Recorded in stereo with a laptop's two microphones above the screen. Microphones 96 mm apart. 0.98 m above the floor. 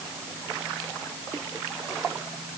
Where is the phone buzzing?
No phone buzzing in this recording.